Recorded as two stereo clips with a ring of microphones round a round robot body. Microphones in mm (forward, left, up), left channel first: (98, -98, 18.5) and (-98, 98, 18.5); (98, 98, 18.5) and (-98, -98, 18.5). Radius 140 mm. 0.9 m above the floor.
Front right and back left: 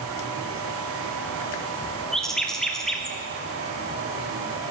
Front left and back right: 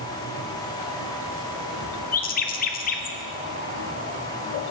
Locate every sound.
2.1 s a bird: 40° left, 0.7 m